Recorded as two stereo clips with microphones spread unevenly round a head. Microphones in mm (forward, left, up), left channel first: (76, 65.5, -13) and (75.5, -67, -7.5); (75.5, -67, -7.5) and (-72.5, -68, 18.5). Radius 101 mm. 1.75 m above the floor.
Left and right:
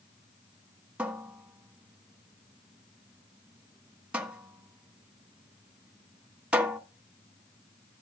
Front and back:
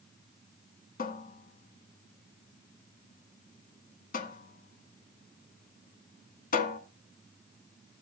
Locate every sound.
1.0 s a cupboard door: 15° right, 1.3 m